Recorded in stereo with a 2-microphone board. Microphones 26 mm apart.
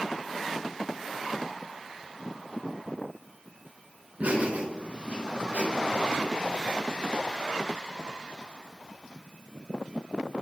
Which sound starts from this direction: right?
Laughter, at 4.2 s.